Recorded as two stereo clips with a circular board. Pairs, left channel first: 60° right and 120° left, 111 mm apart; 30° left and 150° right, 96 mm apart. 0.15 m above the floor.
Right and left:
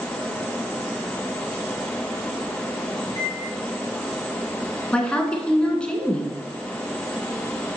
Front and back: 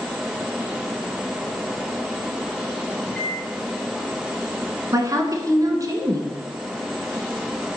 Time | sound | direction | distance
3.0 | a microwave | 110° left | 3 m
4.9 | a woman speaking | 135° right | 1.2 m